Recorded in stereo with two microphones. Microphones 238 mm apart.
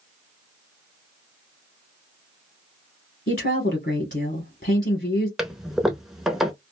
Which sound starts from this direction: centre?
A toilet flushing, at 5.4 s.